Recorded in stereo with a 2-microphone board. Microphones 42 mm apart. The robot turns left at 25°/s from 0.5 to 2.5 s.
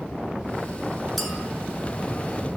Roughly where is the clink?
Centre.